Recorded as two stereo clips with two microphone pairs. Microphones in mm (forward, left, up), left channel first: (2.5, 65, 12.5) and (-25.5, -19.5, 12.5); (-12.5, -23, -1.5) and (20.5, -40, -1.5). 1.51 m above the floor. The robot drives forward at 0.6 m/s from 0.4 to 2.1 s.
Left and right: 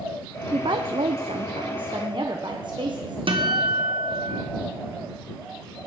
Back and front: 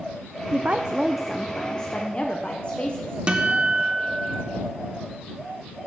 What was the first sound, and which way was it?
A woman speaking, 70° right.